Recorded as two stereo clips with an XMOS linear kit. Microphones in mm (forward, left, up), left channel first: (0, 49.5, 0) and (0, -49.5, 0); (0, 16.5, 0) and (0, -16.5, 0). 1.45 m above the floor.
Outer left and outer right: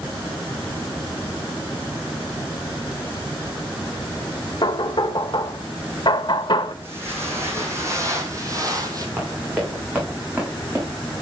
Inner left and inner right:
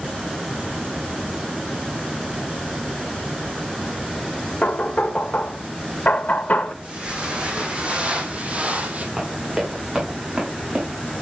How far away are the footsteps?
About 4.5 m.